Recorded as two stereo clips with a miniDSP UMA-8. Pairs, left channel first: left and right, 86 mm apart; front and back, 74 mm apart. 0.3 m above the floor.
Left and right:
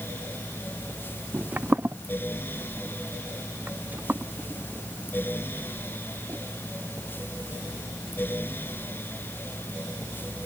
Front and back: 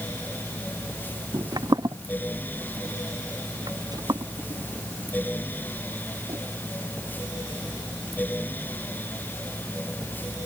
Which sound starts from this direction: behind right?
Footsteps, at 1.3 s.